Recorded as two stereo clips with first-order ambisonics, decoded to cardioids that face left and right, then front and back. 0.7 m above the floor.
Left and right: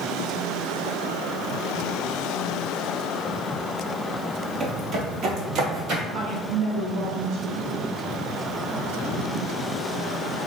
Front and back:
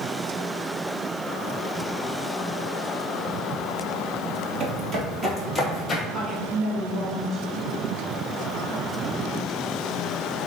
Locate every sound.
4.6 s footsteps: 155° right, 0.9 m; by 6.0 s 75° right, 1.1 m
6.1 s a woman speaking: 135° right, 1.2 m